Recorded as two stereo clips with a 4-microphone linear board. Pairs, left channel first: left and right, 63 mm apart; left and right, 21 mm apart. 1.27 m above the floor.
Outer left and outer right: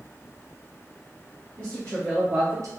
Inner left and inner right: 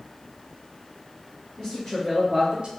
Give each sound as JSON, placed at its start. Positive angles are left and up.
{"t": 1.6, "sound": "a woman speaking", "side_deg": 30, "distance_m": 1.4}